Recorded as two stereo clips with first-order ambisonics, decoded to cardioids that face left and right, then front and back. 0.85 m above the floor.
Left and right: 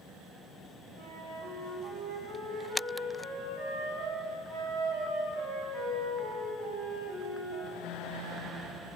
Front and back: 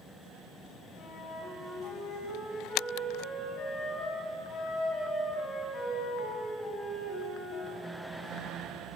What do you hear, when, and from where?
1.0 s a flute: 60° right, 2.5 m